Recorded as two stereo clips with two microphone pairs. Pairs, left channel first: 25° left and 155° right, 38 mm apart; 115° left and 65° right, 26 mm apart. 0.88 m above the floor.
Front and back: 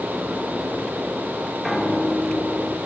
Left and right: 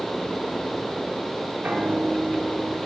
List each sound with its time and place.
1.6 s a piano: 65° right, 1.2 m